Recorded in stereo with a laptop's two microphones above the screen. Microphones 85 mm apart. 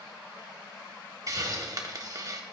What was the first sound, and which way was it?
A hiss, 45° right (ahead or behind).